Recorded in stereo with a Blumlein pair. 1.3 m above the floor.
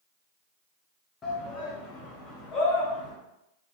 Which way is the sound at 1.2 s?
20° left.